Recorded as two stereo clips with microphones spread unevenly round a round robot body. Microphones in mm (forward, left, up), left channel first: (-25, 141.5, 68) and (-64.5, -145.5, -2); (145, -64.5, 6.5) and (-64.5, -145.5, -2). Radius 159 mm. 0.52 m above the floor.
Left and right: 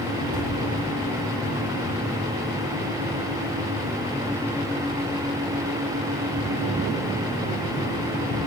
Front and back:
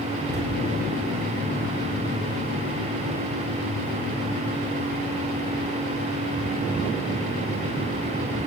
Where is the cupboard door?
115° right, 6 m.